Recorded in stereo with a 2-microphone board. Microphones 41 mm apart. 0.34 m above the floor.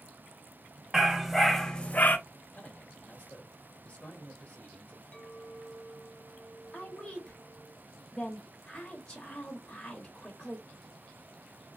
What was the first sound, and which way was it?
A dog barking, 10° right (ahead or behind).